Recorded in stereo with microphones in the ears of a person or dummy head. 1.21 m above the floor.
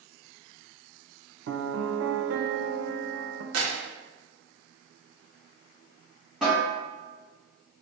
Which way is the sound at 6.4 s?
10° right (ahead or behind).